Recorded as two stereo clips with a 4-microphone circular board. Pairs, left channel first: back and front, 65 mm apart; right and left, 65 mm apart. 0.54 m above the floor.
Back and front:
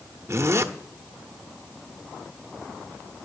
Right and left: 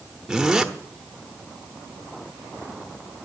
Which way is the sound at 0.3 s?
10° left.